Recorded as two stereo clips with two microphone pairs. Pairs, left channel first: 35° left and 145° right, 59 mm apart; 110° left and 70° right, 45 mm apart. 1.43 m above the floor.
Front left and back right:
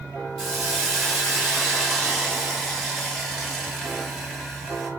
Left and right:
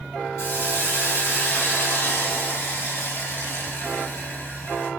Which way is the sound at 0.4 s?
115° left.